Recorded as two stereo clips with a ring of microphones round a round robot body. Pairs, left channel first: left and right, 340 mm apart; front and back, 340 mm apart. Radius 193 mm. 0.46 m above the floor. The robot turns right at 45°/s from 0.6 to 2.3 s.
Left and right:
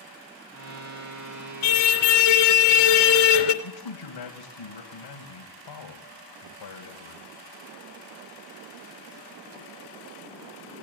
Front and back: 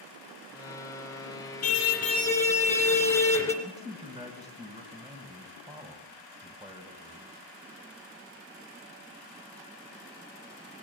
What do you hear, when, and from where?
1.6 s a car horn: 55° left, 2.5 m; by 3.5 s 85° left, 2.5 m
3.6 s a man speaking: 100° left, 2.5 m